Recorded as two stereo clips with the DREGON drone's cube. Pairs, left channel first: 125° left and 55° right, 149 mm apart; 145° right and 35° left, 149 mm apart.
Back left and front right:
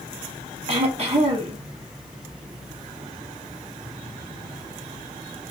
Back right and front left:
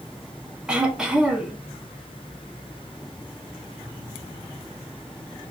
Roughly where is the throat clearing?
Ahead right.